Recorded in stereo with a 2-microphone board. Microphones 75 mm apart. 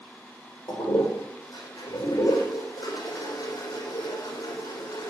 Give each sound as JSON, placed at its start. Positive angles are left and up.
{"t": 0.7, "sound": "a toilet flushing", "side_deg": 60, "distance_m": 5.5}